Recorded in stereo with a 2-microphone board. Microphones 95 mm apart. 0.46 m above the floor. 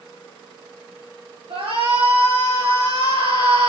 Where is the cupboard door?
I don't hear a cupboard door.